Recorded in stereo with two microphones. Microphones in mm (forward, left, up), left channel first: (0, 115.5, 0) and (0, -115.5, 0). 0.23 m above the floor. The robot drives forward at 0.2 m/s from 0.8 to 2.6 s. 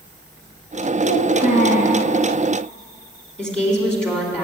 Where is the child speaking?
40° left (ahead or behind), 2 m; by 2.0 s 35° left (ahead or behind), 2.5 m.